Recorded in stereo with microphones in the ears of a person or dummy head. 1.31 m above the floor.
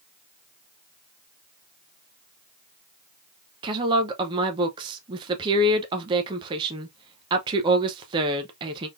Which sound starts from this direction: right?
A woman speaking, at 3.6 s.